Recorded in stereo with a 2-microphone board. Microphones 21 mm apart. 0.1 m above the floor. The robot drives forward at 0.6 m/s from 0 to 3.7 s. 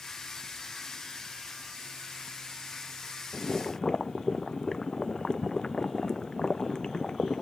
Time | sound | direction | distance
3.3 | boiling | 40° left (ahead or behind) | ?